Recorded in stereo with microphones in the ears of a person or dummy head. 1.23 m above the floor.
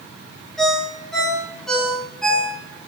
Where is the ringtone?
Centre (ahead or behind), 9 m.